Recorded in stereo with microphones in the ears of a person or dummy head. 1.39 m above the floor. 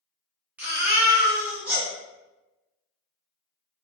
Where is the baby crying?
5° right (ahead or behind), 0.9 m.